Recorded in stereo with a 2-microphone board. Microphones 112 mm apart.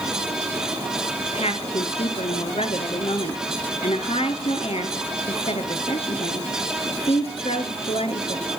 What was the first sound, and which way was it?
A woman speaking, 65° left (ahead or behind).